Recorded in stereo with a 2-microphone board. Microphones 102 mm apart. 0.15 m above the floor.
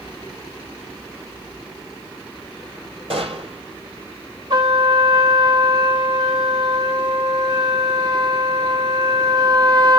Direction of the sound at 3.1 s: 70° right (ahead or behind).